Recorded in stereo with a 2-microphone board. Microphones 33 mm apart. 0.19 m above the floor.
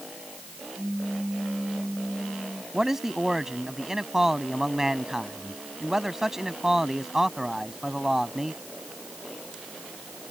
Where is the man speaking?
15° right (ahead or behind).